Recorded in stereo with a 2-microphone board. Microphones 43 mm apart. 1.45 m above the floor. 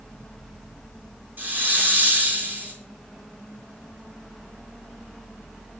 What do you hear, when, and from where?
1.4 s a hiss: 50° right (ahead or behind), 3.5 m